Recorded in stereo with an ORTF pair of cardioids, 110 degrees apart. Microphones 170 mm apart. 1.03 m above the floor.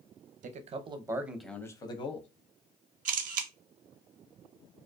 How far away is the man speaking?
About 0.7 m.